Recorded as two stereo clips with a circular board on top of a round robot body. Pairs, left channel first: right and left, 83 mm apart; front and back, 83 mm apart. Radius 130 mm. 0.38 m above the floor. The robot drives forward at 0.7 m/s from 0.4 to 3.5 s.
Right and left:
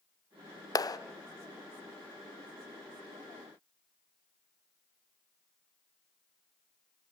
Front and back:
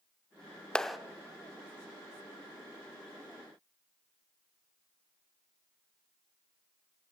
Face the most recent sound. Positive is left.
turn(degrees=-160)